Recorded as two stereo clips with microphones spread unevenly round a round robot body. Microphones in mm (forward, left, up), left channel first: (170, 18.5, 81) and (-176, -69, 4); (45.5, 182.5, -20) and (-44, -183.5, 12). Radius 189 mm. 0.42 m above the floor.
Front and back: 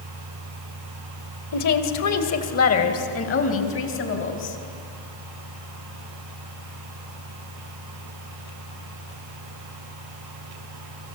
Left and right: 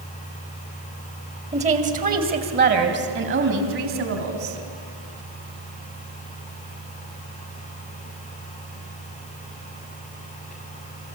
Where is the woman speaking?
30° right, 2.5 m; by 4.6 s 45° right, 4 m.